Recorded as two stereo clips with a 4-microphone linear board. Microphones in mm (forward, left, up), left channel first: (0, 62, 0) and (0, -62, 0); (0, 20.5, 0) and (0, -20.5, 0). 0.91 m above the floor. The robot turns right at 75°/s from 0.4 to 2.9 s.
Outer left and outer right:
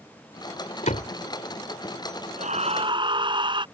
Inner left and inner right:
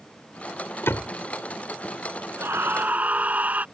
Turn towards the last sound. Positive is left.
turn(degrees=-40)